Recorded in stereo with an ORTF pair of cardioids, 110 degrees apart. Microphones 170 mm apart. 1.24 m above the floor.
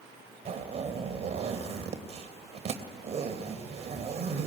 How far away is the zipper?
About 3 m.